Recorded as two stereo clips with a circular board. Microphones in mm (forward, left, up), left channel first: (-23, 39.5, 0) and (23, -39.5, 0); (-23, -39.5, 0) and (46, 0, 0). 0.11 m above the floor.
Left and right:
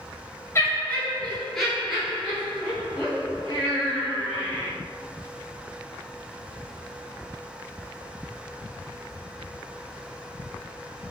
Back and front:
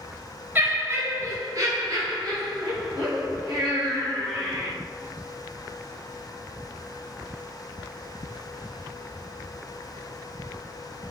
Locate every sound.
0.6 s laughter: 80° left, 1.4 m; by 4.7 s 5° right, 3.5 m